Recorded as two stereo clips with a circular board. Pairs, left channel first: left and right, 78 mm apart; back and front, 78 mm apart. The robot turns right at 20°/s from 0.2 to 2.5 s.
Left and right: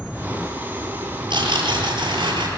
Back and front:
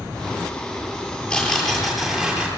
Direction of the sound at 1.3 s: 100° right.